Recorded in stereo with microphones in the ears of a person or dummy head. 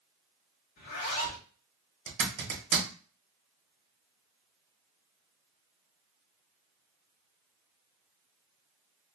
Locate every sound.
0.8 s a zipper: 50° left (ahead or behind), 0.8 m
2.1 s a zipper: 55° right (ahead or behind), 1.2 m